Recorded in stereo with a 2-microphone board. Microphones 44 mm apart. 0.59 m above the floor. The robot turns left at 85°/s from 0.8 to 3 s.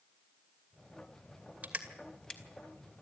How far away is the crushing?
About 2.5 m.